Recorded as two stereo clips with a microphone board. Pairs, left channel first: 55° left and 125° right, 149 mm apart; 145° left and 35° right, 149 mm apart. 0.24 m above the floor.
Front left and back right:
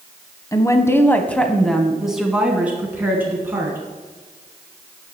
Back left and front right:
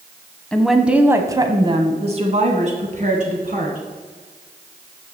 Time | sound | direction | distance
0.5 | a woman speaking | 75° left | 1.0 m